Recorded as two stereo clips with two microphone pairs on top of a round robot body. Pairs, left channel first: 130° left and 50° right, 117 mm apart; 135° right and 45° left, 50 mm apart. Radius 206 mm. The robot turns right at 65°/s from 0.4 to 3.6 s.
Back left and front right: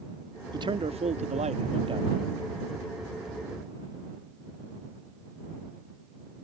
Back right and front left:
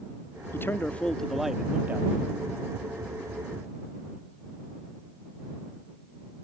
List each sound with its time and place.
0.5 s a man speaking: 100° right; by 2.2 s 5° left